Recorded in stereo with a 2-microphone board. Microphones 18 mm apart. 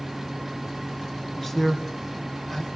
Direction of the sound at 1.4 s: 15° left (ahead or behind).